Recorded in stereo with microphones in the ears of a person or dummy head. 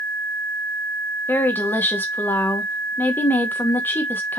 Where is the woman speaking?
15° left (ahead or behind), 0.7 m.